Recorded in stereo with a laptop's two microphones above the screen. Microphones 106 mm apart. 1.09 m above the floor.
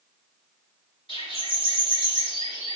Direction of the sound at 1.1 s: 60° left (ahead or behind).